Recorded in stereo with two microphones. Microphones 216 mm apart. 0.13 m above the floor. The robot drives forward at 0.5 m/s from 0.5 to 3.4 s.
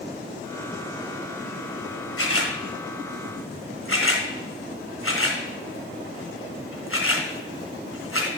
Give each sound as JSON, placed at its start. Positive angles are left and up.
{"t": 2.2, "sound": "a camera shutter", "side_deg": 80, "distance_m": 2.0}